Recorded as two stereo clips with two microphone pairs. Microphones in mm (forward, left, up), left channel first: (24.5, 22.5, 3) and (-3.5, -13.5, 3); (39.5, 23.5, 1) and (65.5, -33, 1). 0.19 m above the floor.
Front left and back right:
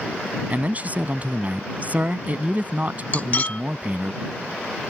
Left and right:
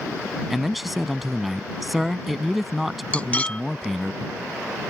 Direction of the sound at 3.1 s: 60° left.